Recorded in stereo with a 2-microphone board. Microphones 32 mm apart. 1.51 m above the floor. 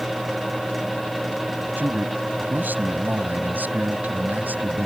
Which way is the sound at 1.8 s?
80° right.